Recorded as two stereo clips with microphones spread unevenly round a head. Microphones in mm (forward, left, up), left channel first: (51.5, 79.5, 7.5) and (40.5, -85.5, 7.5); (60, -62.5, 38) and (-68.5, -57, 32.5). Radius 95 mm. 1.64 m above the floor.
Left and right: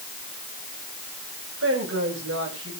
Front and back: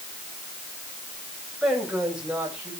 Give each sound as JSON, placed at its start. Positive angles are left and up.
{"t": 1.6, "sound": "a woman speaking", "azimuth_deg": -95, "distance_m": 7.5}